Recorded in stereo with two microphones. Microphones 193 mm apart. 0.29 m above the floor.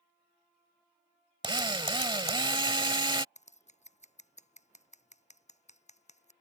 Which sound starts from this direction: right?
A drill, at 1.4 s.